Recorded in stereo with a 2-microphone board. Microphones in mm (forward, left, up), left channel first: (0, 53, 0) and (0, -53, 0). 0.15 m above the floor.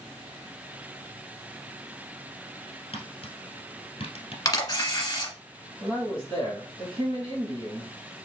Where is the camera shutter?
30° left (ahead or behind), 1.4 m.